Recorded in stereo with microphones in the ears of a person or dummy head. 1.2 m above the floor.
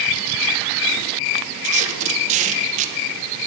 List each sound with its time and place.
1.6 s tape being pulled: 40° right (ahead or behind), 1.1 m